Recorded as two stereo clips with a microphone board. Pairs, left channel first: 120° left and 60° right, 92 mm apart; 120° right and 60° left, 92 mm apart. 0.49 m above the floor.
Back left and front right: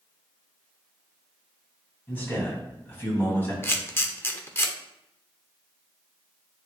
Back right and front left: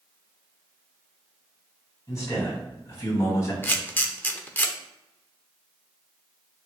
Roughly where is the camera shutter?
Behind.